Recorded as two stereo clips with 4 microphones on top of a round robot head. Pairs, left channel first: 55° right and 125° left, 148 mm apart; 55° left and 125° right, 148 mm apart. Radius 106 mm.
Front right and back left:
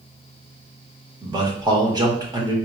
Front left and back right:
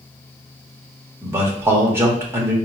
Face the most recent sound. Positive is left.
turn(degrees=170)